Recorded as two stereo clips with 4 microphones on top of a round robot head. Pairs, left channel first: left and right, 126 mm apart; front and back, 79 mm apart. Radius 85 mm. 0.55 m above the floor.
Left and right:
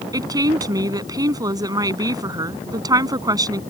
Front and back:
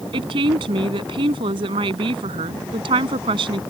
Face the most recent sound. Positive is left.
turn(degrees=-150)